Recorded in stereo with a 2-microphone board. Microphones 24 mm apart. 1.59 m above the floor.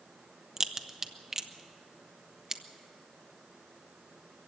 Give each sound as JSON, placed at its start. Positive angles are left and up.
{"t": 0.6, "sound": "a crack", "side_deg": -25, "distance_m": 1.0}